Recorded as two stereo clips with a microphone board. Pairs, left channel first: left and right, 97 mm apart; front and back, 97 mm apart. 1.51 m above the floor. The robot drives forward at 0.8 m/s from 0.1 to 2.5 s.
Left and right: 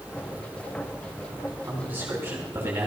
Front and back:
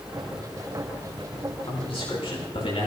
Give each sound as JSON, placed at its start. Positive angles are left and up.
{"t": 1.7, "sound": "a man speaking", "azimuth_deg": -20, "distance_m": 7.0}